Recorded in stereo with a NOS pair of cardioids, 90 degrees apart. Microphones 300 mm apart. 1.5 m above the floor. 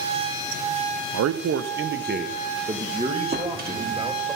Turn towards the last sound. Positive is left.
turn(degrees=-35)